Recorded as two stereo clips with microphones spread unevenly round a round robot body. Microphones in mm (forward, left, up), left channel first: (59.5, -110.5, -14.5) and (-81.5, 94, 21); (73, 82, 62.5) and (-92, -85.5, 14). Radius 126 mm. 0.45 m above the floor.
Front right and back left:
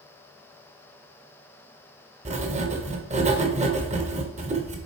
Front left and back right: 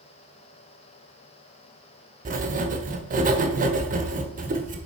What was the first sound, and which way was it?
Writing, 170° right.